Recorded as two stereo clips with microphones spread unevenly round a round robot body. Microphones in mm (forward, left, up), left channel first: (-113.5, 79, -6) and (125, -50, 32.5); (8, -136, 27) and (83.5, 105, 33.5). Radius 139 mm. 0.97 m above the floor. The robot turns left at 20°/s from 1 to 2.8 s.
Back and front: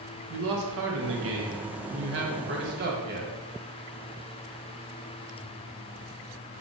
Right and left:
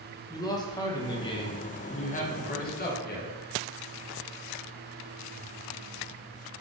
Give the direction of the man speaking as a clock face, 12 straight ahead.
1 o'clock.